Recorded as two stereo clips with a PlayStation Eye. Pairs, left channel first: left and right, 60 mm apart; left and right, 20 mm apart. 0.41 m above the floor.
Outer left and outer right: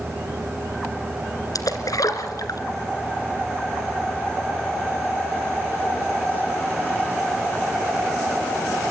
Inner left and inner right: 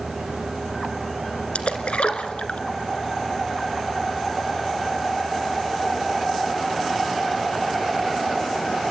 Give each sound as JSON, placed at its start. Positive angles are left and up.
{"t": 1.6, "sound": "a splash", "side_deg": 80, "distance_m": 2.5}